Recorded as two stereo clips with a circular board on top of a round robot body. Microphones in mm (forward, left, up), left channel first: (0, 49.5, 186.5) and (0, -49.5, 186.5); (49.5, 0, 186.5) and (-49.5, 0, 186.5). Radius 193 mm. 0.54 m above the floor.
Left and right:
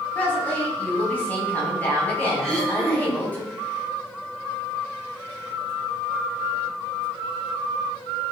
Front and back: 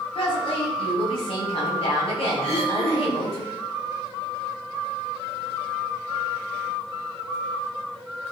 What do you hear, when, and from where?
0.1 s a woman speaking: 20° left, 6 m
2.4 s throat clearing: 10° left, 5.5 m